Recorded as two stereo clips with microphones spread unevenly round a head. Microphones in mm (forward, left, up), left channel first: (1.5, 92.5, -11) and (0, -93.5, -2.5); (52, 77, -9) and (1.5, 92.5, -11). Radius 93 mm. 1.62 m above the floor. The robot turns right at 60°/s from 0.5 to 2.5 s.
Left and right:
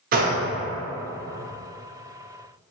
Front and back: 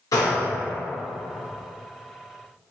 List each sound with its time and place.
0.1 s a gunshot: 45° right, 0.5 m